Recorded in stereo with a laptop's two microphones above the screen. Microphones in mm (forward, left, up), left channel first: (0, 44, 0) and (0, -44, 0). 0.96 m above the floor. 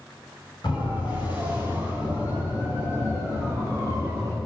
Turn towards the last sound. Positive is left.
turn(degrees=30)  # may be behind; listen again after turning